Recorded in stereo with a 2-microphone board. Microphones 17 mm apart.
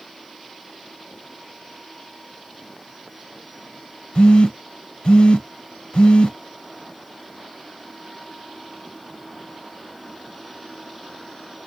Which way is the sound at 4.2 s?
75° left (ahead or behind).